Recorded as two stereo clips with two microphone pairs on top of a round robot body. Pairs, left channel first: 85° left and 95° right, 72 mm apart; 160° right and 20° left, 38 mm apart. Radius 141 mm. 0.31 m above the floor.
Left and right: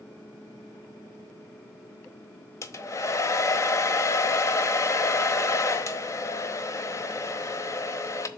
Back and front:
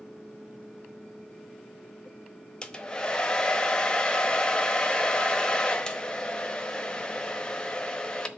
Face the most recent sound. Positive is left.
turn(degrees=130)